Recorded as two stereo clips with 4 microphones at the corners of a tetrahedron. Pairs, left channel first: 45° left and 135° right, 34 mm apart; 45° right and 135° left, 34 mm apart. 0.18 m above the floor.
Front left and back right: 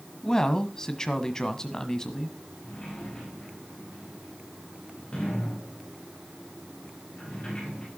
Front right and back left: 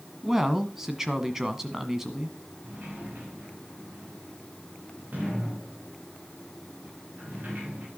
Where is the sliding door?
110° left, 7 m.